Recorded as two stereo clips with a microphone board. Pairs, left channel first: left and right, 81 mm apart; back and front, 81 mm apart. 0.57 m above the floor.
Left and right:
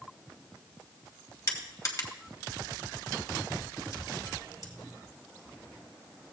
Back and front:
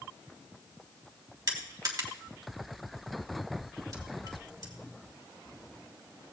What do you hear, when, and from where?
1.5 s crushing: 45° left, 2.0 m